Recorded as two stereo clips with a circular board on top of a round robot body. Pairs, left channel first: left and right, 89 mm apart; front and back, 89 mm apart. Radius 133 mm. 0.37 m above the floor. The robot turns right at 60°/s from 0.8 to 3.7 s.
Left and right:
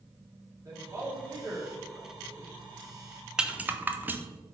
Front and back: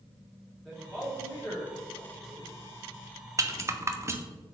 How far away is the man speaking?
About 1.7 m.